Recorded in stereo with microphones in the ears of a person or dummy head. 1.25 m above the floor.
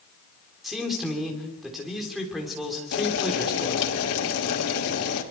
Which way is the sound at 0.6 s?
Centre (ahead or behind).